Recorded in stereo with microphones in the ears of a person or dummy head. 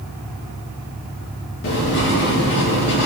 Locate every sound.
1.6 s writing: 60° left (ahead or behind), 2 m